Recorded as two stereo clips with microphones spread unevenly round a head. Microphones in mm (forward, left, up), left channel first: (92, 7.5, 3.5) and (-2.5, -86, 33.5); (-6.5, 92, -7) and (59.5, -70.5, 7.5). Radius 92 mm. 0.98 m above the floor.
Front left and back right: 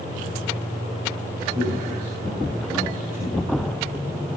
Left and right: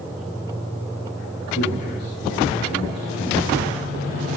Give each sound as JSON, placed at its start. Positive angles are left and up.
{"t": 1.6, "sound": "a man speaking", "azimuth_deg": 165, "distance_m": 8.0}